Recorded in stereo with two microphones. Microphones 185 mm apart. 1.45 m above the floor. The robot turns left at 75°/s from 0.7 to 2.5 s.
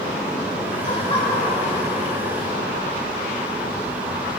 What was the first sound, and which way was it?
Laughter, 50° left.